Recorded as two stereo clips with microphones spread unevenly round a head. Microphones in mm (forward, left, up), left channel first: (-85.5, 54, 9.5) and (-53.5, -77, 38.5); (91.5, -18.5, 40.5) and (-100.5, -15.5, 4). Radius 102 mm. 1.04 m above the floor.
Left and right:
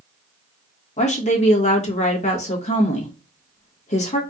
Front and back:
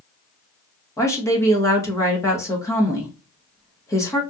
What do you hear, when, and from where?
1.0 s a woman speaking: 80° left, 1.5 m